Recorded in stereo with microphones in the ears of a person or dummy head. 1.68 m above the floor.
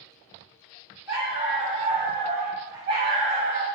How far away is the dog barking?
About 1.4 m.